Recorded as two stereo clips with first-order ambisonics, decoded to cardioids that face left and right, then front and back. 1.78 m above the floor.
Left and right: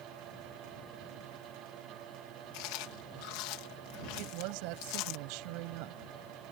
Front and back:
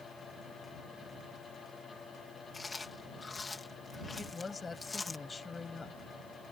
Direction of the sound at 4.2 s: 75° right.